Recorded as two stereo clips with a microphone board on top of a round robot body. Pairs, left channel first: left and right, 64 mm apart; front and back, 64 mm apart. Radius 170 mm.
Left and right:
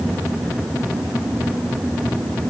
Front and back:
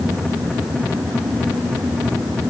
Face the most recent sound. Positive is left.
No sound to turn to.